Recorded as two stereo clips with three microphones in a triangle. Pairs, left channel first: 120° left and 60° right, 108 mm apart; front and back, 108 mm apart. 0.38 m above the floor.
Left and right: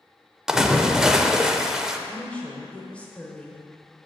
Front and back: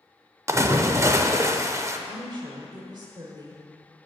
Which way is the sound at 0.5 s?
140° right.